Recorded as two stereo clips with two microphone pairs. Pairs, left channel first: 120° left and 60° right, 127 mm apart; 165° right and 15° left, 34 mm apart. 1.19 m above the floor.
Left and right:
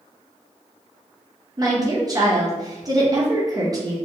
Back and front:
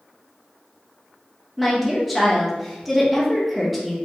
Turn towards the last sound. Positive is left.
turn(degrees=-70)